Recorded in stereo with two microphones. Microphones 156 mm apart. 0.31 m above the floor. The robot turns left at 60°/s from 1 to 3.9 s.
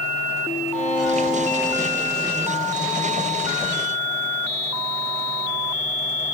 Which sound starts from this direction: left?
A violin, at 0.7 s.